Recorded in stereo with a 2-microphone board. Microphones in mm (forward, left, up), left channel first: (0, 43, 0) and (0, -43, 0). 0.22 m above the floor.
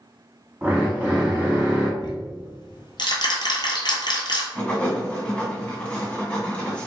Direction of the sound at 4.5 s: 15° left (ahead or behind).